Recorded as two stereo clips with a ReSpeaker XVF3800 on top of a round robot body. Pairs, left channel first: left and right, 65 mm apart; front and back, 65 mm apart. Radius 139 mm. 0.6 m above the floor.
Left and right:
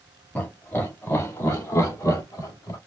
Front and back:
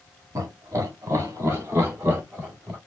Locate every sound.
0.3 s laughter: 150° left, 2 m; by 2.8 s 115° left, 3 m